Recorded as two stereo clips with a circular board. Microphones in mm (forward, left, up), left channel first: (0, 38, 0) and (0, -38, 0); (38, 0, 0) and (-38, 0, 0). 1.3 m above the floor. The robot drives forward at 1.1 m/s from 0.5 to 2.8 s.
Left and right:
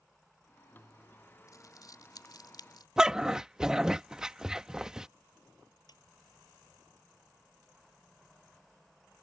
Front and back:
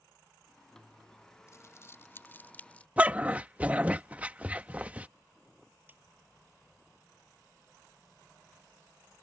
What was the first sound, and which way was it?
Crumpling, 50° left.